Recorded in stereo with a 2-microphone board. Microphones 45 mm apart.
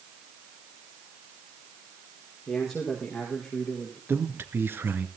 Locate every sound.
2.5 s a man speaking: 5° left (ahead or behind), 5.5 m; by 4.0 s centre (ahead or behind), 6 m
4.1 s a man speaking: 50° right (ahead or behind), 2.5 m